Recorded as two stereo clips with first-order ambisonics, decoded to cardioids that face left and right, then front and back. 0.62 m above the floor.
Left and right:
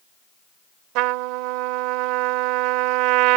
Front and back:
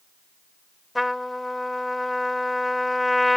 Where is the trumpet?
85° right.